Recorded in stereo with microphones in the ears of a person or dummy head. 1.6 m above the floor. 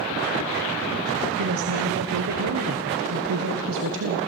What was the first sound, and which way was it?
A woman speaking, 70° right (ahead or behind).